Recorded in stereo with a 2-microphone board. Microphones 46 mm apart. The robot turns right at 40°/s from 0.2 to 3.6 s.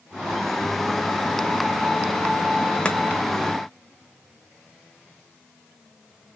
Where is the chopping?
20° left (ahead or behind), 0.8 m.